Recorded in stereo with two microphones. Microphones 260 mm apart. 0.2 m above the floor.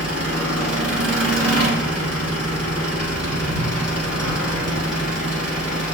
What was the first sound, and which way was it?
An engine running, 70° right (ahead or behind).